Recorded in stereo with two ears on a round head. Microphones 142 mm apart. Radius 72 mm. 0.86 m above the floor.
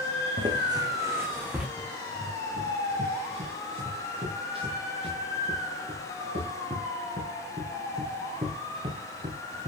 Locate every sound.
0.4 s footsteps: 35° right (ahead or behind), 3 m; by 1.7 s 10° right (ahead or behind), 3.5 m
1.8 s running footsteps: 40° right (ahead or behind), 7.5 m; by 9.7 s 30° right (ahead or behind), 3.5 m